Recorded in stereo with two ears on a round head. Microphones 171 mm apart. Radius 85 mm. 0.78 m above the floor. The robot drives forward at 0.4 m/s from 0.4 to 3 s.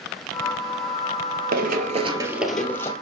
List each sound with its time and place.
1.5 s running footsteps: 55° right (ahead or behind), 1.2 m; by 2.9 s 15° left (ahead or behind), 1.5 m